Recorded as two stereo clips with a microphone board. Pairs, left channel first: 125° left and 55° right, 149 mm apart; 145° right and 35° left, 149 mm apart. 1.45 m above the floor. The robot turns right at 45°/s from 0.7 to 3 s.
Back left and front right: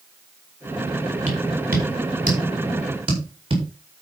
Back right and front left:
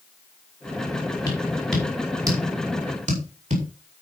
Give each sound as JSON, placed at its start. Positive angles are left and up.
{"t": 1.3, "sound": "tapping", "azimuth_deg": -80, "distance_m": 4.5}